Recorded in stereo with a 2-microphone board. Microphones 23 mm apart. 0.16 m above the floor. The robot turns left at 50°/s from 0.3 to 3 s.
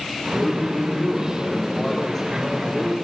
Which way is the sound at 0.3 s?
105° left.